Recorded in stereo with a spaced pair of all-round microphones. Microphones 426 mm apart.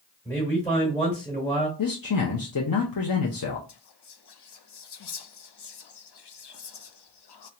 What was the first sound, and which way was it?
A man speaking, 5° left (ahead or behind).